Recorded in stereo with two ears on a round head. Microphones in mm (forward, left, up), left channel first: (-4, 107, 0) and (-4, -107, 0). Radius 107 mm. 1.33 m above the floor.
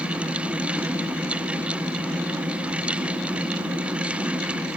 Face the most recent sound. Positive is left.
No sound to turn to.